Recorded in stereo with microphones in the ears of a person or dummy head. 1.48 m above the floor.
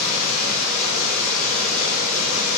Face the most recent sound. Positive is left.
turn(degrees=60)  # may be behind; listen again after turning